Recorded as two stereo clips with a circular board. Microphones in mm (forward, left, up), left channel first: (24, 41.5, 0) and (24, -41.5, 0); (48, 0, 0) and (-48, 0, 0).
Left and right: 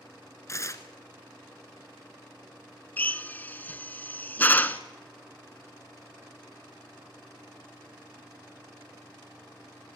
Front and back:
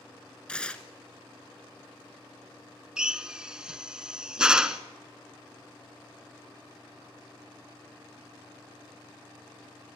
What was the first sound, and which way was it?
Tearing paper, 75° left.